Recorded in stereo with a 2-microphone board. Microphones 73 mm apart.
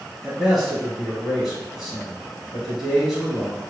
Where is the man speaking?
5° right (ahead or behind), 1.5 m.